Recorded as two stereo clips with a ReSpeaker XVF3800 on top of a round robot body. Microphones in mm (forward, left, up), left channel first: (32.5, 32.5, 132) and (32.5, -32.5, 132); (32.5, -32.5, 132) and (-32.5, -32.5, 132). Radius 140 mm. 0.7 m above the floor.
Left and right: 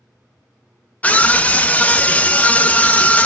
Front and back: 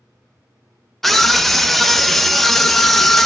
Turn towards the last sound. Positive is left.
turn(degrees=85)